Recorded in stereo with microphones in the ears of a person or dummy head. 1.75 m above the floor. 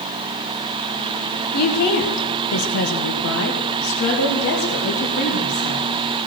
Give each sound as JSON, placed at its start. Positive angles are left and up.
{"t": 1.5, "sound": "a woman speaking", "side_deg": 50, "distance_m": 1.7}